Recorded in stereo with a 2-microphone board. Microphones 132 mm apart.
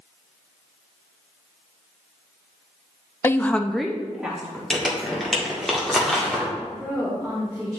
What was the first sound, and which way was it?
A woman speaking, 20° left (ahead or behind).